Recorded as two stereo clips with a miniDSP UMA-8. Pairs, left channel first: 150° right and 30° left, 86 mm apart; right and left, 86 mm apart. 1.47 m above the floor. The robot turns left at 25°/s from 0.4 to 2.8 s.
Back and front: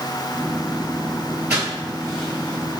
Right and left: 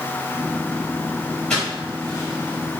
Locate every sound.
1.5 s footsteps: 30° right, 1.7 m; by 2.8 s 105° right, 2.0 m